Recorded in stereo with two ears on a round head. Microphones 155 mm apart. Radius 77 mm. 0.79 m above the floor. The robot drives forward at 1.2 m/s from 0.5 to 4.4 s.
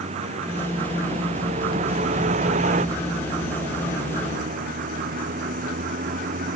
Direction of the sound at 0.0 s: 40° right (ahead or behind).